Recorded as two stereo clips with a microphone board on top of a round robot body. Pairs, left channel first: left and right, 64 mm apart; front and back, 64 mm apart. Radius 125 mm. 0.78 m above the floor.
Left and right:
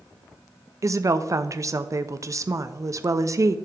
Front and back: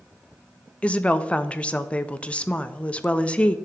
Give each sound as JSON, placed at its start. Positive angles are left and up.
{"t": 0.8, "sound": "a woman speaking", "azimuth_deg": -70, "distance_m": 0.5}